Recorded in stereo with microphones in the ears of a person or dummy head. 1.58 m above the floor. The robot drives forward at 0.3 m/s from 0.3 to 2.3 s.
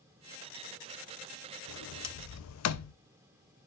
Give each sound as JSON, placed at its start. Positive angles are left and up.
{"t": 1.7, "sound": "a sliding door", "side_deg": 75, "distance_m": 0.6}